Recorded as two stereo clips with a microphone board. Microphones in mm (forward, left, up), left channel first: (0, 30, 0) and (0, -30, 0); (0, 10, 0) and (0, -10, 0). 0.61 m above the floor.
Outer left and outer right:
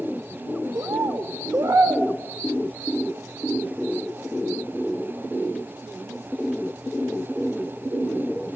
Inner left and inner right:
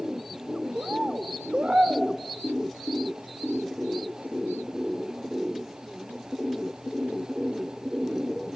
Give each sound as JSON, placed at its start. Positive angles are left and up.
{"t": 0.8, "sound": "a bird", "side_deg": -75, "distance_m": 0.8}